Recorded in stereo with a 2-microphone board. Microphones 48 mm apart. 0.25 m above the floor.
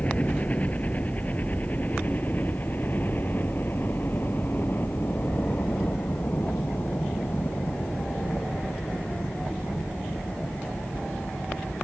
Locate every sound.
0.0 s a helicopter: 30° left (ahead or behind); by 11.8 s 55° left (ahead or behind)